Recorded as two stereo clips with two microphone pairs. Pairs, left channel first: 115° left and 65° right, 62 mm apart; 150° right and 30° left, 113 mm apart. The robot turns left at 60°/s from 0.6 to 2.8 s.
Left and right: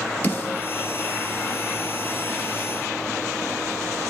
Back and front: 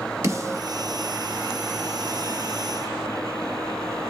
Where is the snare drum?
80° left, 1.1 m.